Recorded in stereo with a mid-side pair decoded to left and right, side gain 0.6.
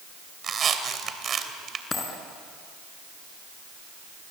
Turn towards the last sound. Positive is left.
turn(degrees=25)